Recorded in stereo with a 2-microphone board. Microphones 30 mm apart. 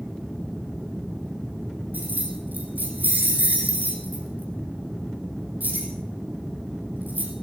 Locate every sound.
1.9 s keys jangling: 75° right (ahead or behind), 4.5 m